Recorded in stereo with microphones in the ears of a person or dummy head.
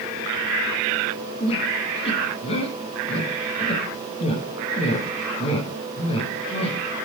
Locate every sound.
1.4 s a squeak: 30° left (ahead or behind), 6 m